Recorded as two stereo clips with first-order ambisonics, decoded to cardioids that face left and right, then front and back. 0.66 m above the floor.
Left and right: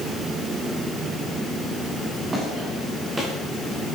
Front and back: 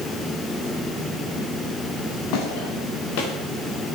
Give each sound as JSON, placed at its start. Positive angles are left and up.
{"t": 2.0, "sound": "footsteps", "azimuth_deg": -15, "distance_m": 7.0}